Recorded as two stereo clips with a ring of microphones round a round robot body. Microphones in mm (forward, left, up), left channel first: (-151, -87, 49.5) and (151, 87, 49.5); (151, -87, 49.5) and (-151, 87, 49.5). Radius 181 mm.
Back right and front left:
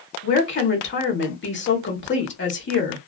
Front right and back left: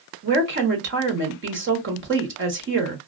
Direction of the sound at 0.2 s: Straight behind.